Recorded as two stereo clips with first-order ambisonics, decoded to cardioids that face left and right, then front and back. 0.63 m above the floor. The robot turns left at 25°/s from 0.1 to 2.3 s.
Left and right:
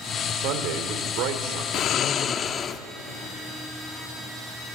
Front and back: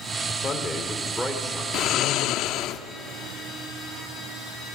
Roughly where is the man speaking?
Right.